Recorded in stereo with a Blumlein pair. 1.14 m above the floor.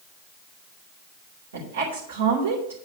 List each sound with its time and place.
1.5 s a woman speaking: 60° right, 3 m